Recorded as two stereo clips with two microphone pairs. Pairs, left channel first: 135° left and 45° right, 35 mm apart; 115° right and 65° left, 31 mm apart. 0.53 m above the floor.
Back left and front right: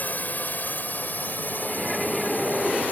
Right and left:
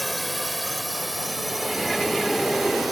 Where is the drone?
150° left; by 2.9 s 145° left.